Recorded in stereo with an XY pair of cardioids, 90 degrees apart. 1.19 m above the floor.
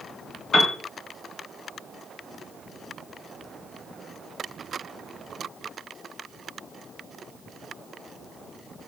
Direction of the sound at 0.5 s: 60° left.